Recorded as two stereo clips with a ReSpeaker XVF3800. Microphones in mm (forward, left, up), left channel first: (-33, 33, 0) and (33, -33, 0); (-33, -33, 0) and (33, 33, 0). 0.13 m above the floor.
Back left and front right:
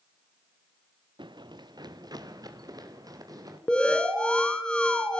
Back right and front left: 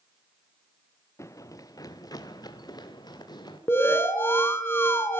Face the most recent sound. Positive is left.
turn(degrees=-160)